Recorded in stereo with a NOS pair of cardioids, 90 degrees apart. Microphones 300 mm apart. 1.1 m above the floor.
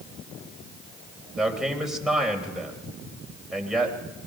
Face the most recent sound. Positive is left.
turn(degrees=0)